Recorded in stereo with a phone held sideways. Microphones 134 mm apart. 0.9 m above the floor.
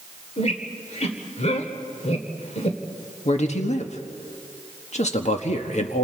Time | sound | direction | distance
0.4 | a squeak | 55° left (ahead or behind) | 1.8 m
3.2 | a man speaking | 55° left (ahead or behind) | 1.5 m